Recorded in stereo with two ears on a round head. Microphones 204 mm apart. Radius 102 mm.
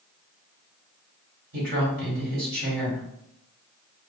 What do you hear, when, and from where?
1.5 s a woman speaking: 40° right (ahead or behind), 1.8 m